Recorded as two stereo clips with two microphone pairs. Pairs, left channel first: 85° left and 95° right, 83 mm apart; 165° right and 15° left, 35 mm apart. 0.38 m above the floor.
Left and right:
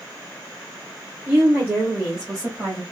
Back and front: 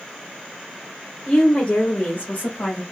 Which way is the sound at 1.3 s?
135° right.